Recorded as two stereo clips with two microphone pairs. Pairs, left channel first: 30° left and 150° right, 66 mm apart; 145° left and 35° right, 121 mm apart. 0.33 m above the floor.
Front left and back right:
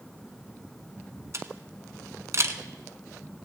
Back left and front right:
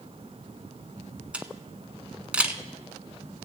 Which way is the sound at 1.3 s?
110° right.